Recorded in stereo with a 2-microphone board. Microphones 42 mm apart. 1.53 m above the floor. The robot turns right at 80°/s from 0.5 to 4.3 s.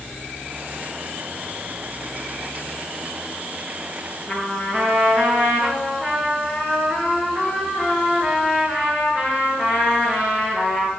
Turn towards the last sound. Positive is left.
turn(degrees=-25)  # may be behind; listen again after turning